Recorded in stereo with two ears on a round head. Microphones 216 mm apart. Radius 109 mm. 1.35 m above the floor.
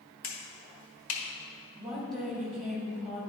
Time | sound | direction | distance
0.2 | a finger snap | 60° left (ahead or behind) | 1.6 m
1.8 | a woman speaking | centre (ahead or behind) | 2 m